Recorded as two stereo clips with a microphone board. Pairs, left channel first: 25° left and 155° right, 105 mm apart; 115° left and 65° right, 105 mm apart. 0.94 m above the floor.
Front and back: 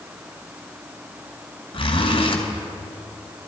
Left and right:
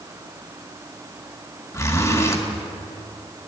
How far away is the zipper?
About 2 m.